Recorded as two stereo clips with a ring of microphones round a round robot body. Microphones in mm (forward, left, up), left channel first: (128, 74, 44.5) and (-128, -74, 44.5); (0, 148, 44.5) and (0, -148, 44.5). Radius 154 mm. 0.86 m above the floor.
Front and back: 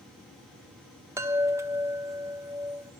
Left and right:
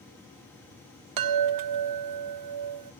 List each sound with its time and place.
1.2 s a chime: 70° right, 0.6 m